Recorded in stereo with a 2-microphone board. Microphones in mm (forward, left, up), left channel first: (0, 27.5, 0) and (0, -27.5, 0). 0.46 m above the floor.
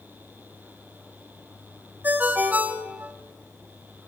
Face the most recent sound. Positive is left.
turn(degrees=-30)  # may be behind; listen again after turning